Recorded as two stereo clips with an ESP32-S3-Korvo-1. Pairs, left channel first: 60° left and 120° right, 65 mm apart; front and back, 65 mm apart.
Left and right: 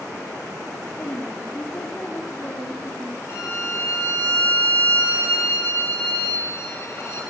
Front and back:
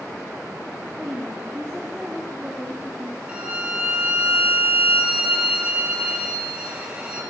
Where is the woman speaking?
105° left, 3.5 m.